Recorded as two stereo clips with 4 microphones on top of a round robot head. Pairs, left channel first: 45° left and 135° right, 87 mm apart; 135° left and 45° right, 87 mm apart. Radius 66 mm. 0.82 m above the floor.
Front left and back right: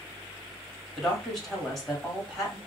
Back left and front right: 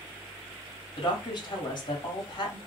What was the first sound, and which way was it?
A woman speaking, 130° left.